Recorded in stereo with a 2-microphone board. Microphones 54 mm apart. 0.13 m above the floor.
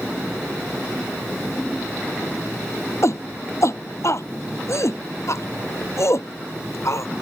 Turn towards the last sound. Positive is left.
turn(degrees=60)  # may be behind; listen again after turning